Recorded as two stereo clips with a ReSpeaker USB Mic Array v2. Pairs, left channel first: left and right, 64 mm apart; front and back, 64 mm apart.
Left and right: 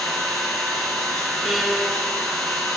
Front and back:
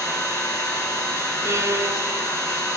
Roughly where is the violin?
Behind.